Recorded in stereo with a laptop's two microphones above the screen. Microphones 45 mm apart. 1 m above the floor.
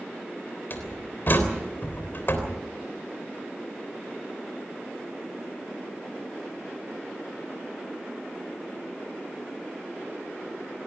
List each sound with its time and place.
0.7 s a door slam: 50° left (ahead or behind), 3.5 m